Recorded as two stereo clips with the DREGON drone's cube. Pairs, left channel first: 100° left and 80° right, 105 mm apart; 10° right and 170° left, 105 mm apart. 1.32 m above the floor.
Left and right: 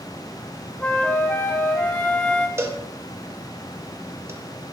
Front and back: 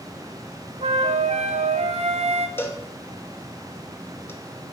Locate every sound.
0.8 s a flute: 175° left, 0.5 m
2.6 s a cowbell: 50° right, 0.7 m